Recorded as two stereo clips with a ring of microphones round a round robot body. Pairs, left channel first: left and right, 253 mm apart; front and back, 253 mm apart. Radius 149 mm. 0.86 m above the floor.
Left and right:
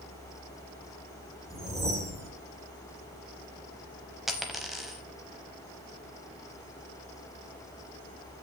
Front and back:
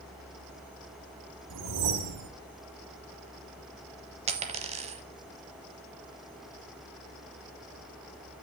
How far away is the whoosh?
About 1.6 m.